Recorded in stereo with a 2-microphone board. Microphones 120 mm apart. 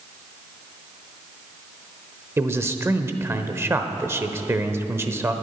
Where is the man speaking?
20° right (ahead or behind), 0.8 m.